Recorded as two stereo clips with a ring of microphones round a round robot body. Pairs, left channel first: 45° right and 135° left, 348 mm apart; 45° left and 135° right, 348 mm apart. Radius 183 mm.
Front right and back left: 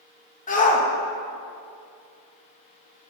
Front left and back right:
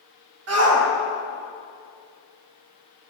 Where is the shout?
105° right, 1.2 m.